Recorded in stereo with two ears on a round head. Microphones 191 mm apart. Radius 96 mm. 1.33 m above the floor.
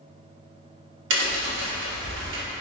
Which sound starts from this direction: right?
A crack, at 1.1 s.